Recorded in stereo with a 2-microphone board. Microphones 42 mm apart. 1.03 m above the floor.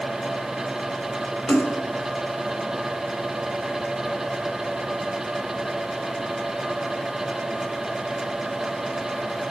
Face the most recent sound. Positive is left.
turn(degrees=65)  # may be behind; listen again after turning